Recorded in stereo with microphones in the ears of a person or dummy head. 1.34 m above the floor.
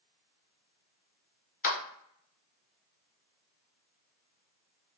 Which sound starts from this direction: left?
A clap, at 1.6 s.